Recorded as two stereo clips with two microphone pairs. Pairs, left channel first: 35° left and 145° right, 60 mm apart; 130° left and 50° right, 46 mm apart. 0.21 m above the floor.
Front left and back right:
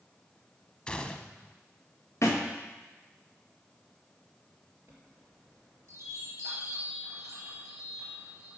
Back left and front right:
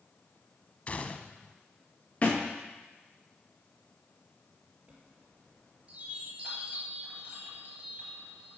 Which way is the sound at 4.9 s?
115° right.